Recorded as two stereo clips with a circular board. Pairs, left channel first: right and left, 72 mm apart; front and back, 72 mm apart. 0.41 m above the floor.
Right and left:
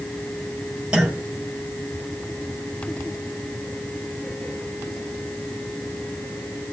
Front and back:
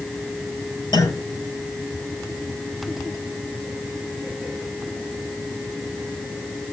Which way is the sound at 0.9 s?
10° left.